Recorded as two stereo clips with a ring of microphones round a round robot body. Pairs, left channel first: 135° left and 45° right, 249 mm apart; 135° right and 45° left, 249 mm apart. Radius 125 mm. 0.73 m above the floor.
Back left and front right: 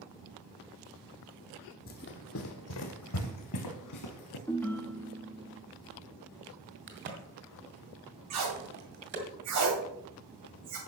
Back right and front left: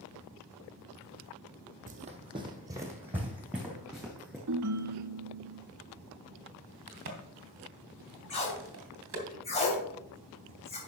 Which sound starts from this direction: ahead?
A crack, at 6.9 s.